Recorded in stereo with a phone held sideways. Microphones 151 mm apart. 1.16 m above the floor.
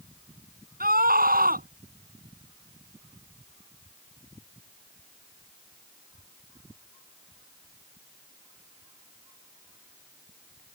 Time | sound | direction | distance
0.8 | a scream | 75° right (ahead or behind) | ?